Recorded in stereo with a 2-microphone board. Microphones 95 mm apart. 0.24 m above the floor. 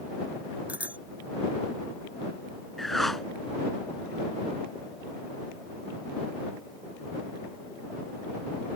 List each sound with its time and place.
0.7 s a bicycle bell: 15° right (ahead or behind)
2.8 s a whoosh: 5° left (ahead or behind)